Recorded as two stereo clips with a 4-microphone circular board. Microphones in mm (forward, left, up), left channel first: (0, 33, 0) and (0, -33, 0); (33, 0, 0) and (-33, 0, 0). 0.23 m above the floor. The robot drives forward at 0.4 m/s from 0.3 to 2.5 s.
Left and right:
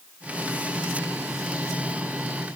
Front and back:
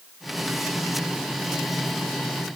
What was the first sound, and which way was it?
Only background noise.